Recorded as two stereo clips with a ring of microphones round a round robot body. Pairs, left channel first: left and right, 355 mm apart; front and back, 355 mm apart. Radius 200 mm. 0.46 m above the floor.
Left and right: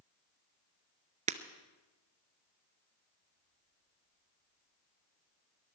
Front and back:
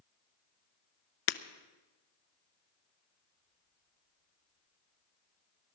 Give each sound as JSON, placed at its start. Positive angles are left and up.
{"t": 1.3, "sound": "breaking glass", "azimuth_deg": -20, "distance_m": 0.7}